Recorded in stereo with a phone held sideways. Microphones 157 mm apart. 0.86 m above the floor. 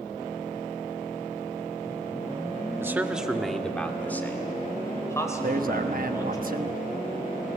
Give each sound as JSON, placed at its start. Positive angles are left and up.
{"t": 2.8, "sound": "a man speaking", "side_deg": -15, "distance_m": 1.3}
{"t": 5.4, "sound": "a man speaking", "side_deg": -65, "distance_m": 1.2}